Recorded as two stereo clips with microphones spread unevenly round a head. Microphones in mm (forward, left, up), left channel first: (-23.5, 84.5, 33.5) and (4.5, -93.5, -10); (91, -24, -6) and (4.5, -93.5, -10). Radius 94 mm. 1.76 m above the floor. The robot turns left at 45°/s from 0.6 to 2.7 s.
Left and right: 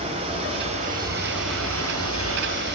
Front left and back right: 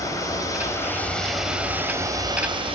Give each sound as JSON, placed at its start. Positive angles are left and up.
{"t": 0.0, "sound": "running water", "azimuth_deg": -15, "distance_m": 3.5}